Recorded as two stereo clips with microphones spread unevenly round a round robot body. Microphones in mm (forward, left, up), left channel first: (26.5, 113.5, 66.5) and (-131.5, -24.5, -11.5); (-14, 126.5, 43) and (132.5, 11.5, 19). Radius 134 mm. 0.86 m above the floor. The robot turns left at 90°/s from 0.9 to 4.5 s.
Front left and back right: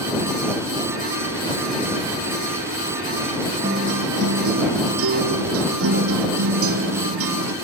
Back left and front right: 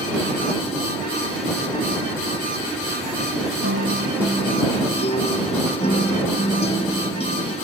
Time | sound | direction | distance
3.6 | a guitar | 70° right | ?